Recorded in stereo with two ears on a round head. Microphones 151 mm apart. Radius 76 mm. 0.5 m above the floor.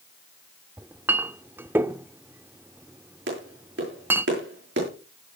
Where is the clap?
75° right (ahead or behind), 9.5 m.